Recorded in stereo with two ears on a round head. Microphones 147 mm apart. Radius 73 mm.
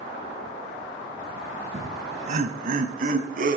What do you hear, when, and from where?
1.7 s laughter: 40° right (ahead or behind), 4 m; by 3.6 s 55° right (ahead or behind), 5 m